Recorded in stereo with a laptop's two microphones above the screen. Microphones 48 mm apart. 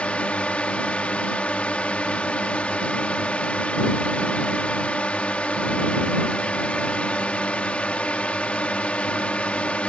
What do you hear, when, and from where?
0.0 s a drone: 25° left (ahead or behind)